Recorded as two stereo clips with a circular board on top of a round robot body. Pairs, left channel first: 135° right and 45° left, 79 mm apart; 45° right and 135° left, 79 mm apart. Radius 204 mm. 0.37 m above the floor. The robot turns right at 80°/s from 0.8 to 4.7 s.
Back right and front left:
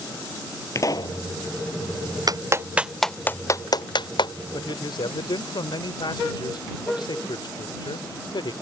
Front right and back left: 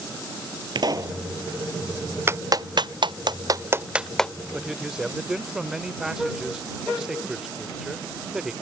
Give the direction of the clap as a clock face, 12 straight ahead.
9 o'clock.